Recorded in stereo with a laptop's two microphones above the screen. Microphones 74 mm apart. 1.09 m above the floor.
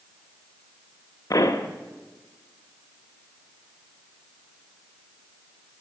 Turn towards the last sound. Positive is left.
turn(degrees=50)  # may be behind; listen again after turning